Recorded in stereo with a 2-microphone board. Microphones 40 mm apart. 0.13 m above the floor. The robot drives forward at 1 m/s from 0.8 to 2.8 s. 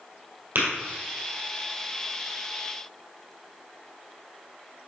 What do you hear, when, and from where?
0.6 s tapping: 65° right (ahead or behind), 2 m